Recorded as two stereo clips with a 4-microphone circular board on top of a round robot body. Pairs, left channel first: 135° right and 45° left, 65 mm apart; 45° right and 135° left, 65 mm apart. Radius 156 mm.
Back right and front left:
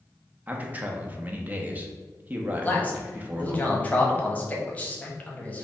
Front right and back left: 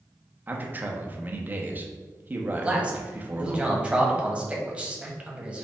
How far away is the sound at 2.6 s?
About 1.3 m.